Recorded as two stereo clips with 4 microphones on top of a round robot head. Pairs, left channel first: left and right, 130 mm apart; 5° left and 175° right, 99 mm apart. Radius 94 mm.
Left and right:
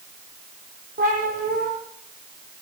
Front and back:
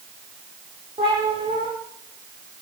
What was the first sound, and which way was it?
A cat meowing, 120° right.